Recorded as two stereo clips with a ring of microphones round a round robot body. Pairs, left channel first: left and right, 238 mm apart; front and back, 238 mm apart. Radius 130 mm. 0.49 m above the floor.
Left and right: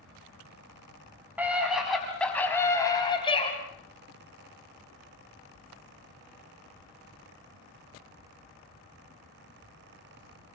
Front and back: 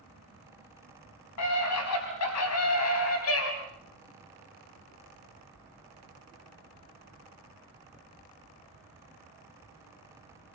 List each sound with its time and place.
1.4 s a scream: 5° right, 5 m; by 3.5 s 25° left, 4.5 m